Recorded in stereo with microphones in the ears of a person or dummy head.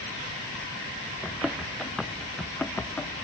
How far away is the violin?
No violin in this recording.